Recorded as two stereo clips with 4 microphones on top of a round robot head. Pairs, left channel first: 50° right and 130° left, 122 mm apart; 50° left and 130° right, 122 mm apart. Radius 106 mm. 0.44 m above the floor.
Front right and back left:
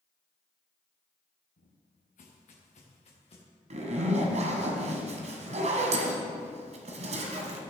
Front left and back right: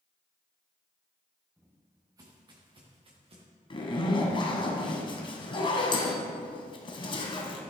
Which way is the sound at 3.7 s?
100° left.